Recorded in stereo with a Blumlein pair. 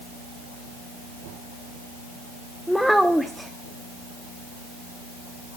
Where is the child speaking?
Straight ahead, 0.5 m.